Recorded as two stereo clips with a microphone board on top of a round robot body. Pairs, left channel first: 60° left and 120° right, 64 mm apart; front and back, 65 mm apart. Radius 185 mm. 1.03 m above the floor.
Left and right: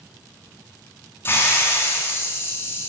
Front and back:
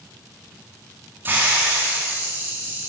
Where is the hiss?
120° left, 3 m.